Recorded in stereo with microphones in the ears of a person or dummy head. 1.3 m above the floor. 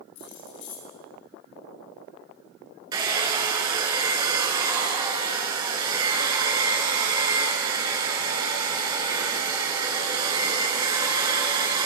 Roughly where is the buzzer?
I don't hear a buzzer.